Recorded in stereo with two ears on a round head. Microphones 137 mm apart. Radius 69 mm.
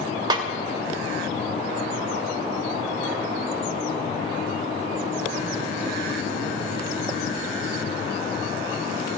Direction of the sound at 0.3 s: 25° right (ahead or behind).